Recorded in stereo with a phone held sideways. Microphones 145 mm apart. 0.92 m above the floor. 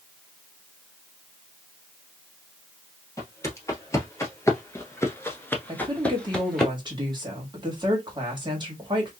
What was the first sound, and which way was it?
Footsteps, 20° left (ahead or behind).